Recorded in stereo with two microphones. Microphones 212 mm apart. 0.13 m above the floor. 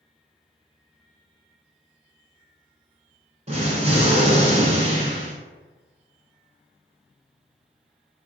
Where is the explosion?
30° right (ahead or behind), 0.8 m.